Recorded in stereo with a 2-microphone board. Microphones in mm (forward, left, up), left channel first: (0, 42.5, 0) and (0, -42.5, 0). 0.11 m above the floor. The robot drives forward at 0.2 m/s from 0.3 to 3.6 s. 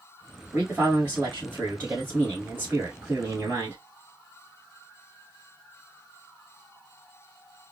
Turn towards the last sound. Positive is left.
turn(degrees=-30)  # may be behind; listen again after turning